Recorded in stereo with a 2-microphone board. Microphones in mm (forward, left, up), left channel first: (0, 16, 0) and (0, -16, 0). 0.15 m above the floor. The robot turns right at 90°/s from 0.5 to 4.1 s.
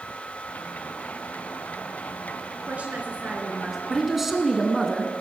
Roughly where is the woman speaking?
Behind right.